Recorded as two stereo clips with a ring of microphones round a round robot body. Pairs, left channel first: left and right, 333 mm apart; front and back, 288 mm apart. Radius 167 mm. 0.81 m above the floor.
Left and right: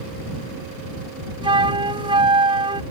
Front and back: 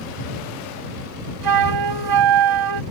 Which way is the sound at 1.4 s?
165° right.